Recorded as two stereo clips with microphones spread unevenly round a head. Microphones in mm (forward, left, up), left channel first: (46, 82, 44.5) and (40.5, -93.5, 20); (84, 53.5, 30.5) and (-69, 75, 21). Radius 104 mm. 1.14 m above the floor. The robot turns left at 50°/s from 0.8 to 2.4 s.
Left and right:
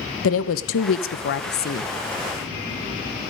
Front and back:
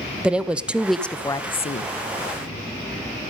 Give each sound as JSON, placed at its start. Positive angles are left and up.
{"t": 0.2, "sound": "a woman speaking", "azimuth_deg": 90, "distance_m": 0.8}